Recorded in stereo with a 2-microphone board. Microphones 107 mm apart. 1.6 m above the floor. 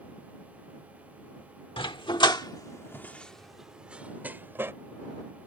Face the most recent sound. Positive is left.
turn(degrees=-20)  # may be behind; listen again after turning